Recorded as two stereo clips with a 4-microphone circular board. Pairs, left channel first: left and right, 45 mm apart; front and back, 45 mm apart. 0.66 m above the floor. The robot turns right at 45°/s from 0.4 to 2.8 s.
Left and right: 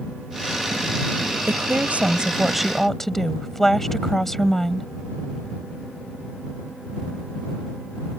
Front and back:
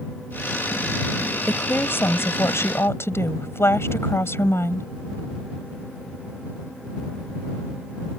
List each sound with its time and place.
1.5 s a woman speaking: 50° right; by 4.9 s 10° left